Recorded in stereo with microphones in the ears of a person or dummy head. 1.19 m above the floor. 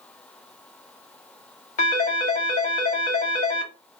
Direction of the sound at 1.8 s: 40° left (ahead or behind).